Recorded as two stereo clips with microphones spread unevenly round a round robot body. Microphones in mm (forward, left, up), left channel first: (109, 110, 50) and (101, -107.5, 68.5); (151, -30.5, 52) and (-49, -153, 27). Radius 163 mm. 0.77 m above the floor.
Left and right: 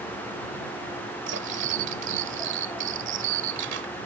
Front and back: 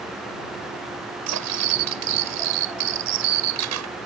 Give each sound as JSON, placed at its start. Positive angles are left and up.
{"t": 1.3, "sound": "cutlery clinking", "azimuth_deg": -145}